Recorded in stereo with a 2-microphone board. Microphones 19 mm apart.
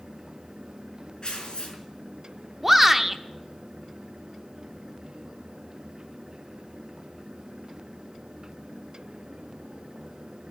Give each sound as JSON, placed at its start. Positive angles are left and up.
{"t": 1.2, "sound": "tearing paper", "side_deg": 50, "distance_m": 4.0}
{"t": 2.6, "sound": "a shout", "side_deg": -10, "distance_m": 0.7}